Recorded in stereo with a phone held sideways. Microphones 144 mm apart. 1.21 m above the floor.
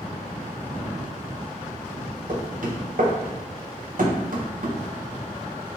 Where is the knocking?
65° right (ahead or behind), 0.9 m.